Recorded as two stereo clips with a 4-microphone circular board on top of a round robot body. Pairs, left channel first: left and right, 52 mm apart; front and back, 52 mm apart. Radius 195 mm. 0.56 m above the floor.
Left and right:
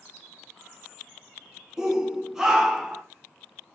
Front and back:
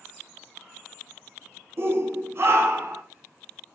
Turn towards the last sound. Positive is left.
turn(degrees=-165)